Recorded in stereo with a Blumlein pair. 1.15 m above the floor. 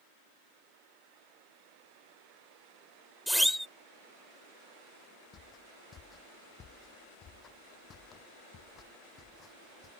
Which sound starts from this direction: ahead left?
Footsteps, at 5.3 s.